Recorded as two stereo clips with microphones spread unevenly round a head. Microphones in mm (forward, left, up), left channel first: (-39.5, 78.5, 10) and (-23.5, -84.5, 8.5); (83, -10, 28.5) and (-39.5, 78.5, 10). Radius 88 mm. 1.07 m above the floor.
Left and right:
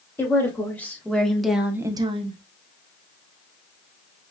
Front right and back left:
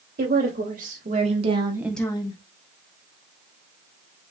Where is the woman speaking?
170° left, 3 m; by 2.4 s 55° right, 0.9 m.